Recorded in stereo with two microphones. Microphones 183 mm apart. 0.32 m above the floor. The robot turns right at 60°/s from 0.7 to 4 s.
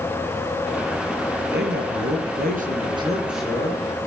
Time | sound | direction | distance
1.5 | a man speaking | 115° right | 5 m